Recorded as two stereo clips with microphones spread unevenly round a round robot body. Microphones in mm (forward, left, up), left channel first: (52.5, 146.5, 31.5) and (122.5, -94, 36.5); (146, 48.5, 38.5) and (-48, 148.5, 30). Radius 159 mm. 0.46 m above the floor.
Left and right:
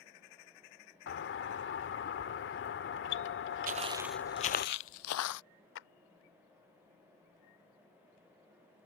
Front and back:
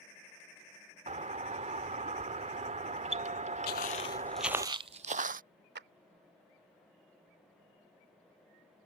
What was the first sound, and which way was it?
A doorbell, 110° left.